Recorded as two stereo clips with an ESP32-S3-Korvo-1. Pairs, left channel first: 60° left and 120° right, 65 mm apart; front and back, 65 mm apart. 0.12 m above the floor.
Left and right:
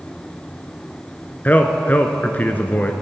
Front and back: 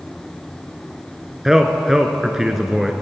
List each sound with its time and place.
1.4 s a man speaking: 105° left, 1.2 m